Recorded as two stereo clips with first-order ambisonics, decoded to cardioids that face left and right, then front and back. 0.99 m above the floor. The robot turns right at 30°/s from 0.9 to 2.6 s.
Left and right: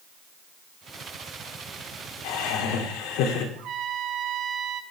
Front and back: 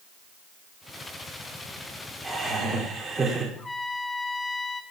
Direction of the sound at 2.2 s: 100° left.